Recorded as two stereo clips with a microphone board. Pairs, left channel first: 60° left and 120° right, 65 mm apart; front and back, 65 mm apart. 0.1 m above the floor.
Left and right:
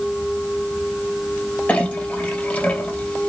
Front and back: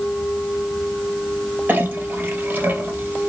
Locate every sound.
1.7 s a clink: 125° left, 1.3 m